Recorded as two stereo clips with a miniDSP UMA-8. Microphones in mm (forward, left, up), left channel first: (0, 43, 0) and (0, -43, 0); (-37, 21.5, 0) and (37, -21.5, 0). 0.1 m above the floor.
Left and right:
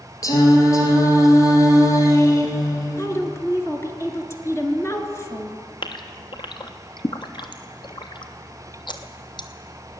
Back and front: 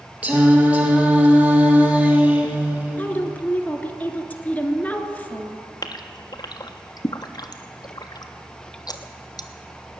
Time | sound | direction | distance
0.2 | singing | 40° left | 2 m
3.0 | a woman speaking | 95° left | 1.4 m
5.8 | a gasp | 115° left | 0.8 m